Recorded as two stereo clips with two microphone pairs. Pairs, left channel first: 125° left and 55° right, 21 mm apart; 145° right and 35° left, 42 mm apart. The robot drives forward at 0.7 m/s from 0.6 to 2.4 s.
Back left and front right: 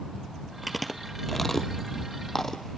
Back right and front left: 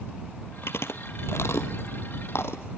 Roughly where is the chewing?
Behind right.